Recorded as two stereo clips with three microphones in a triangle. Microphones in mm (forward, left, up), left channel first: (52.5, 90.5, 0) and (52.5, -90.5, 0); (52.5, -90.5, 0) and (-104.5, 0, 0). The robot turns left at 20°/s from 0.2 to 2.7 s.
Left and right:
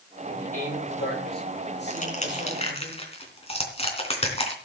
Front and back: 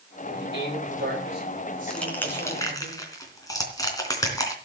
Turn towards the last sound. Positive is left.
turn(degrees=40)